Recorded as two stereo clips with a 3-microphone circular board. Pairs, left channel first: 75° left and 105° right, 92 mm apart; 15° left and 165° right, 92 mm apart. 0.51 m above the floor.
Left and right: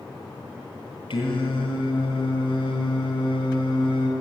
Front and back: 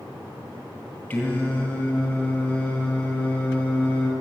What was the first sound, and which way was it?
Singing, 90° left.